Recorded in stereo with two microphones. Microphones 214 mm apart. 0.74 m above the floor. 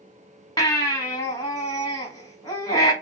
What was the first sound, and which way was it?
A baby crying, 15° left (ahead or behind).